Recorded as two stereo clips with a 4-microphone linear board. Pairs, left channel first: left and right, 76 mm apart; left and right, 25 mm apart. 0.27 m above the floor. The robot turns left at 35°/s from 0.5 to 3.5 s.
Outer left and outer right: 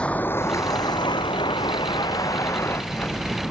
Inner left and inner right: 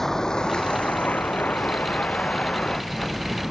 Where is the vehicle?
15° left (ahead or behind); by 3.5 s centre (ahead or behind).